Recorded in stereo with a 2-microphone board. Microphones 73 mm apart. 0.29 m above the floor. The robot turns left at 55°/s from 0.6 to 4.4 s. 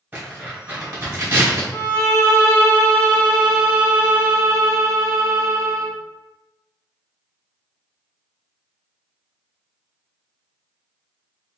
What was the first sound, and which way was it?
Tearing paper, 25° right (ahead or behind).